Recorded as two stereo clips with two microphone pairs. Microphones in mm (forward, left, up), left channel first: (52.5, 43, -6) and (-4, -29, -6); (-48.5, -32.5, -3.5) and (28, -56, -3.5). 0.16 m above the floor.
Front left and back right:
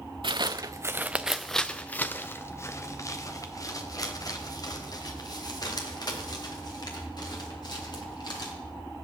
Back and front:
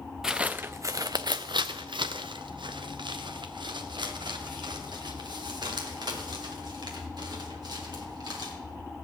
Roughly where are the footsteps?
Right.